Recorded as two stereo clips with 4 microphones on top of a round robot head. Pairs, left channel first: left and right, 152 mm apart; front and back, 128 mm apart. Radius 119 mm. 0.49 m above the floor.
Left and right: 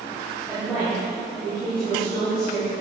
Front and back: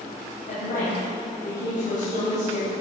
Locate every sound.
0.5 s a woman speaking: 5° left, 3.5 m